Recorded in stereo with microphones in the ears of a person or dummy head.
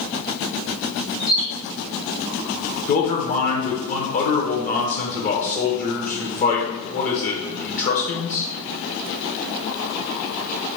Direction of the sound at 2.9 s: 45° left (ahead or behind).